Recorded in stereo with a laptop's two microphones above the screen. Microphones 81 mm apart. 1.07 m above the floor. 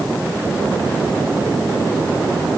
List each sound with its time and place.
Only background noise.